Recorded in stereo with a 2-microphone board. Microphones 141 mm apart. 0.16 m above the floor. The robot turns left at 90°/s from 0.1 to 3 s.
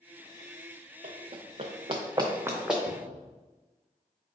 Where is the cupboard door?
50° right (ahead or behind), 0.5 m.